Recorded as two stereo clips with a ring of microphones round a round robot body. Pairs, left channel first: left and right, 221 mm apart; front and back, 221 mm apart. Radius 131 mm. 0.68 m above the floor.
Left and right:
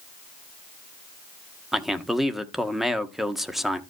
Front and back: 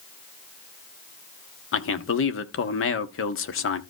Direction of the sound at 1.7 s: Straight ahead.